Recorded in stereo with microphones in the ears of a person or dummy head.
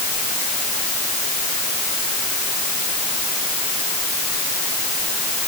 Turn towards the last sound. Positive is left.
No sound to turn to.